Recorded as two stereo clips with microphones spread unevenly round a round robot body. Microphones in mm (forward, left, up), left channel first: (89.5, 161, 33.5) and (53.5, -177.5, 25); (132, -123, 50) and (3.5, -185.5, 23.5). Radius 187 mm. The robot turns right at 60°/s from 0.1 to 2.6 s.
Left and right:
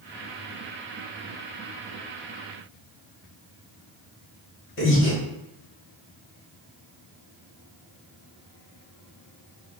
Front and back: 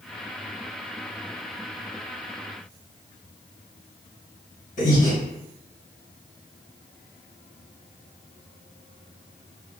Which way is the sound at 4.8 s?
45° left.